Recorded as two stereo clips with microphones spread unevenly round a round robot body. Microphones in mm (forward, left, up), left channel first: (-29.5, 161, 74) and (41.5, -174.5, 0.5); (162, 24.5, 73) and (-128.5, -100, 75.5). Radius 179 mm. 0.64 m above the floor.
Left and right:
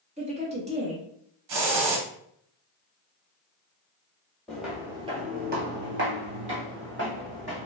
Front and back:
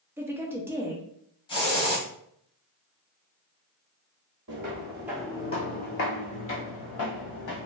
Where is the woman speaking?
80° right, 0.9 m.